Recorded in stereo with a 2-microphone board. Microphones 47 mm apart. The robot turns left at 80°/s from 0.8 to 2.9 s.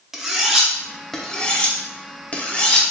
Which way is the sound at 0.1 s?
5° right (ahead or behind).